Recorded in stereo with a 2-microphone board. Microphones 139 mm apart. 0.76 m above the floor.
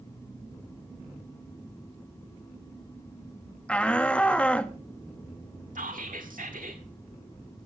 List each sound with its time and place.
3.7 s a shout: 10° left (ahead or behind), 1.3 m
5.8 s whispering: 75° right (ahead or behind), 1.6 m